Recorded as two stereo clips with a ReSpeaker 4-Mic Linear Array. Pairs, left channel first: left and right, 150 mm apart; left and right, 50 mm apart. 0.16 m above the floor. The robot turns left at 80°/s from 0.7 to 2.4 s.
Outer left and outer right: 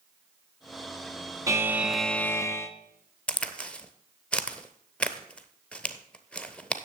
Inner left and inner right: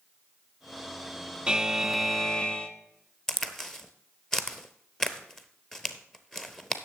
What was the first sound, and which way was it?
A buzzer, 140° right.